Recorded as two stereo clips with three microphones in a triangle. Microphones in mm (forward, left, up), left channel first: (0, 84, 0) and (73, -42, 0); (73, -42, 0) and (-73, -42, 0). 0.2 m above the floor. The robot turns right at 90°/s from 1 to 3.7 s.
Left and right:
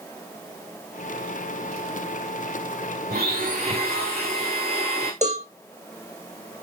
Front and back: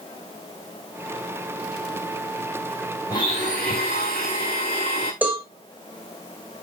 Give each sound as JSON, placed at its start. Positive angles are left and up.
{"t": 3.1, "sound": "a blender", "azimuth_deg": -65, "distance_m": 6.0}
{"t": 5.2, "sound": "a cowbell", "azimuth_deg": -100, "distance_m": 4.0}